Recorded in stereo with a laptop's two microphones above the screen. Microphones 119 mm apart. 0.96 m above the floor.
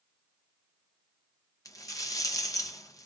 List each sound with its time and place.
1.6 s a rattle: 30° left (ahead or behind), 0.5 m